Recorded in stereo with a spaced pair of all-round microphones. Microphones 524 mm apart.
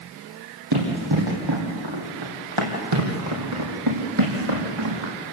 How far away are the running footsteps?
About 5 m.